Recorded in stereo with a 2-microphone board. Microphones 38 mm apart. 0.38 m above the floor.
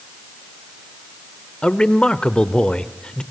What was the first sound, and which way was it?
A man speaking, 25° left (ahead or behind).